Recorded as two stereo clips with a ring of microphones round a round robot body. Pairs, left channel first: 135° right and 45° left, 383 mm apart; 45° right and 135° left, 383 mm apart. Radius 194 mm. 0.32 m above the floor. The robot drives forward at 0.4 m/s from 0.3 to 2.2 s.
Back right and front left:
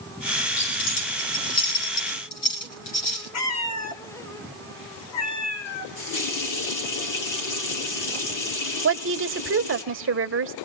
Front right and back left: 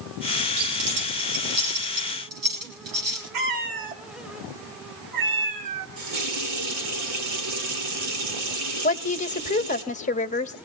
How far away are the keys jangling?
About 7 m.